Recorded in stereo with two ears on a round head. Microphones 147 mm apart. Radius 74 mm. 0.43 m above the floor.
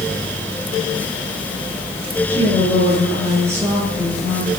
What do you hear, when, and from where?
2.3 s a woman speaking: 15° right (ahead or behind), 7.5 m